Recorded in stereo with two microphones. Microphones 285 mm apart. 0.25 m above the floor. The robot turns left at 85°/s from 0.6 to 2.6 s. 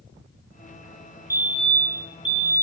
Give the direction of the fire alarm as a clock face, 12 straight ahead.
6 o'clock.